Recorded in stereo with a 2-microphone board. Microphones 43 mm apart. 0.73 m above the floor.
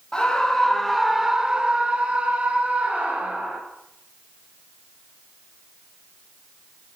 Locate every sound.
0.1 s a scream: 15° left (ahead or behind), 0.9 m; by 3.6 s 30° right (ahead or behind), 2.5 m